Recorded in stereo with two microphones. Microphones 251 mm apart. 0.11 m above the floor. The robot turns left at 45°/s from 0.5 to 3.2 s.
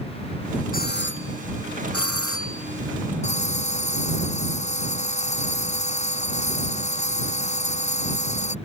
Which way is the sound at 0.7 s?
140° left.